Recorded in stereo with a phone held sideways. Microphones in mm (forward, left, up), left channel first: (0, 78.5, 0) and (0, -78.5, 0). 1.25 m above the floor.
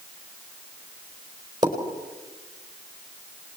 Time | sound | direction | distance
1.6 | a pop | 25° right (ahead or behind) | 4.5 m